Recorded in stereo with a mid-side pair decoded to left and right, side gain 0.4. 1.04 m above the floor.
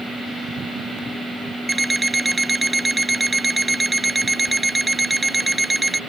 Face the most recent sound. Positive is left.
turn(degrees=-15)